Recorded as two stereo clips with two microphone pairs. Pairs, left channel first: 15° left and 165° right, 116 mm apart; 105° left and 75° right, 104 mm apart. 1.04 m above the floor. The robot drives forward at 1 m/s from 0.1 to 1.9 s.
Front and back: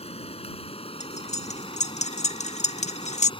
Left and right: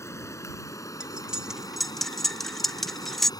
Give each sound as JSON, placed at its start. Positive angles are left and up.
{"t": 0.0, "sound": "running water", "azimuth_deg": 45}
{"t": 1.0, "sound": "cutlery clinking", "azimuth_deg": 5}